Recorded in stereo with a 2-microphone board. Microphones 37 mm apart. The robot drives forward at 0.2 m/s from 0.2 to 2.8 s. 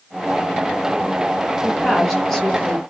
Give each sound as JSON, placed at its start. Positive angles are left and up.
{"t": 1.6, "sound": "a woman speaking", "side_deg": 10, "distance_m": 1.2}